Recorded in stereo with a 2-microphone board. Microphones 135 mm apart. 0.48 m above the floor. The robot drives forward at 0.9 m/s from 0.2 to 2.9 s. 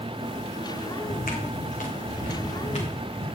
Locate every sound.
1.0 s footsteps: 70° left (ahead or behind), 1.4 m; by 3.2 s 50° left (ahead or behind), 4 m